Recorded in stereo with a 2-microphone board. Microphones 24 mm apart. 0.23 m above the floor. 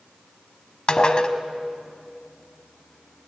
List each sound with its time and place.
0.9 s dishes clattering: 35° left (ahead or behind), 1.0 m